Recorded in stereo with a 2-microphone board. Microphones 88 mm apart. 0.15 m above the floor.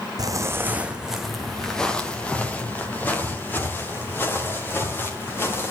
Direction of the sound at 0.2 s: 45° right (ahead or behind).